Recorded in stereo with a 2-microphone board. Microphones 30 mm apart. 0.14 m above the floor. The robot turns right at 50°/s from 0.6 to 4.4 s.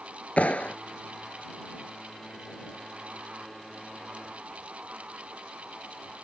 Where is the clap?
50° left (ahead or behind); by 0.8 s 45° left (ahead or behind).